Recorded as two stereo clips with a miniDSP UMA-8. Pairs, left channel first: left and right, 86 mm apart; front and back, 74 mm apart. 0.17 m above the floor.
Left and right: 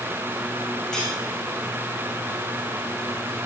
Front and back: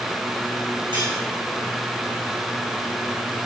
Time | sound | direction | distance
0.9 | cutlery clinking | 175° left | 6.5 m